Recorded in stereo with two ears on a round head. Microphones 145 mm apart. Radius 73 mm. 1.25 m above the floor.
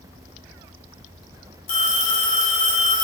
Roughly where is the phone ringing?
Left.